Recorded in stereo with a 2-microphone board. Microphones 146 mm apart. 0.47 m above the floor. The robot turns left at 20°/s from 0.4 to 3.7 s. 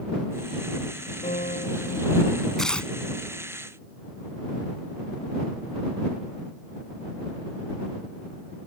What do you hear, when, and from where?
1.2 s a piano: 65° left (ahead or behind); by 2.5 s 85° left
2.6 s tearing paper: 5° left (ahead or behind); by 2.9 s 10° left (ahead or behind)